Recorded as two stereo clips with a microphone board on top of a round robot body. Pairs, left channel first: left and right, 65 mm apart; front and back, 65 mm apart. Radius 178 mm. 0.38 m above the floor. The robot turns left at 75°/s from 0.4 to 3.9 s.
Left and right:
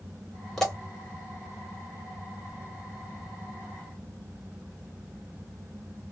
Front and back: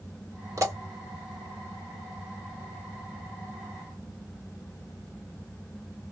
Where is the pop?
175° left, 2 m; by 0.8 s 160° left, 2 m.